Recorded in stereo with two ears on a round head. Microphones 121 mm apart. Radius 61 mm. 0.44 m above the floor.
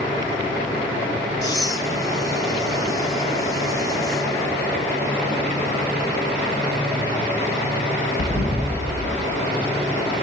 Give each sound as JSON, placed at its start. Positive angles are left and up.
{"t": 1.4, "sound": "breathing", "side_deg": 25, "distance_m": 3.0}